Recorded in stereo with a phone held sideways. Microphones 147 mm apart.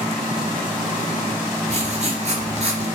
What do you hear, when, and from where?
1.7 s writing: 50° right (ahead or behind), 2.5 m